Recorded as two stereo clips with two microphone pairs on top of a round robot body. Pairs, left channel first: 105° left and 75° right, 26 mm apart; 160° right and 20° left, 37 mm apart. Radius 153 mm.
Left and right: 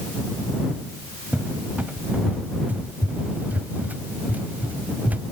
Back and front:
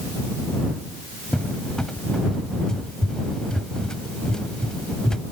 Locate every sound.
1.3 s a cupboard door: 90° right